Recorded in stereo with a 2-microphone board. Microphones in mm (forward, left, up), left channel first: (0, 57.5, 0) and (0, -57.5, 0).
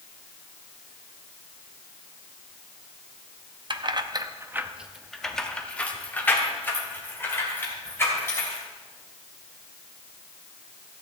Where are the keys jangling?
45° right (ahead or behind), 0.7 m; by 8.6 s 25° left (ahead or behind), 3 m.